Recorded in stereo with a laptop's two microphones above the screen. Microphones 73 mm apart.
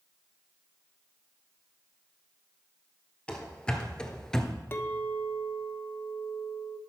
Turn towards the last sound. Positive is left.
turn(degrees=30)  # may be behind; listen again after turning